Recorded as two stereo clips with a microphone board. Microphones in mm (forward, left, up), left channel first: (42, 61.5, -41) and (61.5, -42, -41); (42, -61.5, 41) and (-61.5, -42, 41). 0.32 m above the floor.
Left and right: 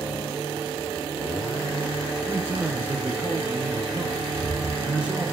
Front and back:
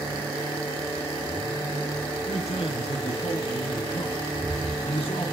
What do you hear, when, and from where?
2.3 s a man speaking: 10° right, 4 m; by 5.3 s straight ahead, 2.5 m
4.3 s footsteps: 135° right, 4.5 m